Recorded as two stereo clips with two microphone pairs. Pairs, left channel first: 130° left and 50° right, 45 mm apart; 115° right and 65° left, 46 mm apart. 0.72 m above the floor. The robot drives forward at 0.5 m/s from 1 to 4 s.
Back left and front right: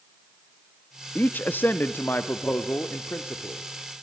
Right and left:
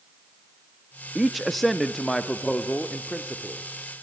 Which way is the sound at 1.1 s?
140° left.